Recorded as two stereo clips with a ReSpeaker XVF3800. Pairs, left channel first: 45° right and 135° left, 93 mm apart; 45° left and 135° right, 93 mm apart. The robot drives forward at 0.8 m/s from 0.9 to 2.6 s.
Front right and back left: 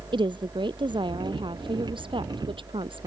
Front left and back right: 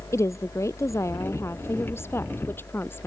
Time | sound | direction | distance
0.1 | a woman speaking | 105° left | ?